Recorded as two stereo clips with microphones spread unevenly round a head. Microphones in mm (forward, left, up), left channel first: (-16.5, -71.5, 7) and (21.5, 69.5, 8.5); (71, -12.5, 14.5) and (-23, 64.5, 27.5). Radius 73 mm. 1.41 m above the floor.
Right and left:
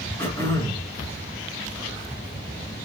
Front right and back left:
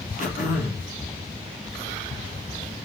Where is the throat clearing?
30° right, 1.3 m.